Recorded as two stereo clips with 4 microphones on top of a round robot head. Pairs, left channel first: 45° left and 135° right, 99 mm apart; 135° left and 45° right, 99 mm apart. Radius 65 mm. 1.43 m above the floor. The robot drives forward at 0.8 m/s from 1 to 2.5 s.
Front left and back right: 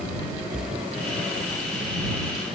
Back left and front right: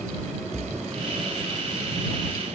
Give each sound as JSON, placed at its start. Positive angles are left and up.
{"t": 0.5, "sound": "a splash", "azimuth_deg": -115, "distance_m": 0.7}